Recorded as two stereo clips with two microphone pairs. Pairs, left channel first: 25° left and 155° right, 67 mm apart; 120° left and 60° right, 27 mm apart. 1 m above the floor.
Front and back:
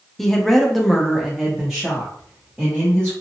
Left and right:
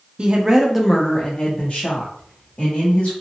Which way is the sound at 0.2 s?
55° right.